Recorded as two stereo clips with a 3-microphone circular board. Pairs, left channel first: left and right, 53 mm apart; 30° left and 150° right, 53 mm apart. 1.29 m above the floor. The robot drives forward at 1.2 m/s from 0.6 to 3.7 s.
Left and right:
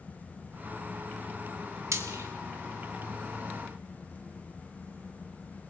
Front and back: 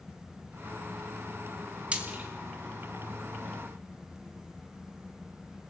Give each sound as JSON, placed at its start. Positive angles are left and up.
{"t": 1.9, "sound": "frying", "azimuth_deg": -85, "distance_m": 2.5}